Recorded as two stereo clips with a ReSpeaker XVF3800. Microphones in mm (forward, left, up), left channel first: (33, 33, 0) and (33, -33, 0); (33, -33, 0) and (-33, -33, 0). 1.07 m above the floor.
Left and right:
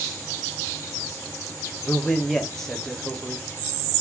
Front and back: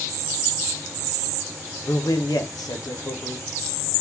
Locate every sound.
1.8 s a man speaking: 5° left, 0.7 m